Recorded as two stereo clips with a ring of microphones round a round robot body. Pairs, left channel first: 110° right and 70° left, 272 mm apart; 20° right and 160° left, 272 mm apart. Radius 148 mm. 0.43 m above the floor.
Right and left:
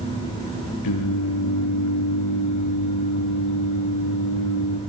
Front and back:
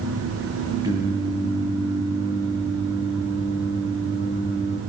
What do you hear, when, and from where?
0.8 s singing: 125° right, 8 m